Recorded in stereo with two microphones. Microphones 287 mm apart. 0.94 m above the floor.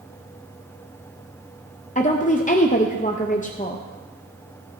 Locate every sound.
1.9 s a woman speaking: 25° left (ahead or behind), 0.7 m